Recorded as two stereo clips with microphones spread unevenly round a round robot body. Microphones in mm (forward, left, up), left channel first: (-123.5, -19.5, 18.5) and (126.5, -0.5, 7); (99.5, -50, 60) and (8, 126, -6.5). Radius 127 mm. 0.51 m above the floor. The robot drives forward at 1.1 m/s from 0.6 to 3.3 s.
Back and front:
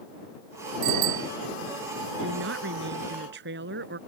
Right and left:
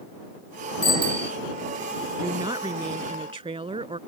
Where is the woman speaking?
45° left; by 4.0 s 55° left.